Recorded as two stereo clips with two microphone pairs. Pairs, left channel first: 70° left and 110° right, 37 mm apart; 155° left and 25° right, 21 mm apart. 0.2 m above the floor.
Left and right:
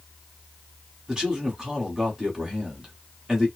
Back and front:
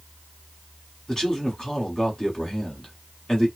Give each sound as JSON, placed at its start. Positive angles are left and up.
{"t": 1.1, "sound": "a man speaking", "azimuth_deg": -170, "distance_m": 1.3}